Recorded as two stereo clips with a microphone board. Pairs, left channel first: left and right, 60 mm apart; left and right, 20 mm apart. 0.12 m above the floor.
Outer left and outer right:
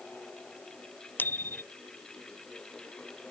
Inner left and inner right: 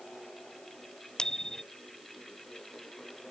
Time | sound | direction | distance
1.2 | a bicycle bell | 35° left (ahead or behind) | ?